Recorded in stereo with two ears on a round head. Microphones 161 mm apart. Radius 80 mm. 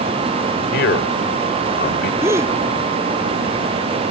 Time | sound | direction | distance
0.7 | a man speaking | 65° left (ahead or behind) | ?
2.2 | a gasp | 15° right (ahead or behind) | ?